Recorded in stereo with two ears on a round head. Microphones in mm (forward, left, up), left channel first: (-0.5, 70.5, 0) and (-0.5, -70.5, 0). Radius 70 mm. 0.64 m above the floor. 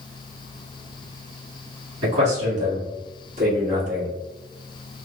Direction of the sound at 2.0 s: 40° right (ahead or behind).